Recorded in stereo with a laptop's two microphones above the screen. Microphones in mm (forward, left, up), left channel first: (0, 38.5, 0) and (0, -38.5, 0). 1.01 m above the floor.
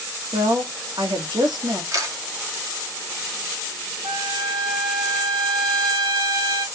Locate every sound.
0.3 s a woman speaking: 75° right (ahead or behind), 1.7 m
1.9 s a camera shutter: 50° right (ahead or behind), 1.1 m
4.0 s a trumpet: 75° right (ahead or behind), 3 m